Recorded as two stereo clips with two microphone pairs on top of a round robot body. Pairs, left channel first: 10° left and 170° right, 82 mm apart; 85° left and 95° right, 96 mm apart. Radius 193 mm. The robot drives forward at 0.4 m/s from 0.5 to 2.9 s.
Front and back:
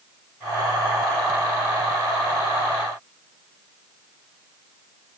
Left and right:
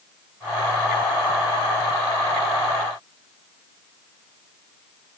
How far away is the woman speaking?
No woman speaking in this recording.